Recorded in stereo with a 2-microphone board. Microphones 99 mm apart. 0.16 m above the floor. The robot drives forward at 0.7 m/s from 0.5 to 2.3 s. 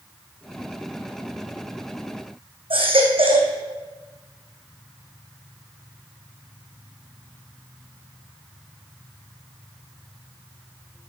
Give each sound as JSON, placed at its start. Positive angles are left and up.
{"t": 2.7, "sound": "a baby crying", "side_deg": -75, "distance_m": 2.5}